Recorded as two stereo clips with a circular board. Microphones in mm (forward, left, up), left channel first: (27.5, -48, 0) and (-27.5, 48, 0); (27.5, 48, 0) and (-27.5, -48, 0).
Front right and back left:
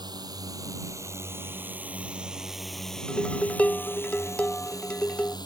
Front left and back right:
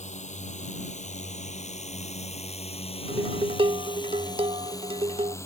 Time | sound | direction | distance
0.0 | a drone | 65° left | ?
3.1 | dishes clattering | 135° right | ?